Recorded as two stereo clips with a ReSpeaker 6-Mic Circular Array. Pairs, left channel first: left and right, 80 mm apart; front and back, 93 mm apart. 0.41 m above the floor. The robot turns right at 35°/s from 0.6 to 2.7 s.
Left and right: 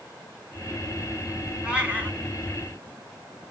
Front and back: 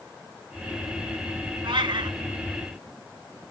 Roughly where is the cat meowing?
Behind.